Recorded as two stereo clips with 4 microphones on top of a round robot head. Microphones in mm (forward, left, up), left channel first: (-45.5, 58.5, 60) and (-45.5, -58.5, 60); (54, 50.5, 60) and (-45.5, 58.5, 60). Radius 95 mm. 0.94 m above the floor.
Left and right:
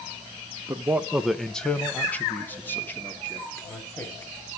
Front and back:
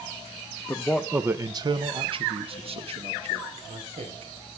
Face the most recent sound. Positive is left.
turn(degrees=160)